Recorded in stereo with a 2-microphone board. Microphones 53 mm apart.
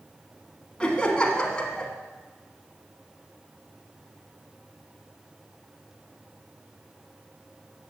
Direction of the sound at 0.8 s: 15° left (ahead or behind).